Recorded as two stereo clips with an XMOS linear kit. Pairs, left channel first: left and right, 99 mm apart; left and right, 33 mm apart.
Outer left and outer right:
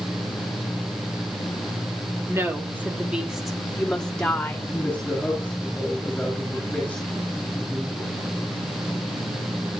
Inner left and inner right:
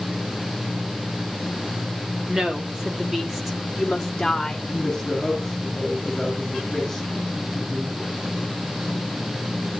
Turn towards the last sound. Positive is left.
turn(degrees=10)  # may be behind; listen again after turning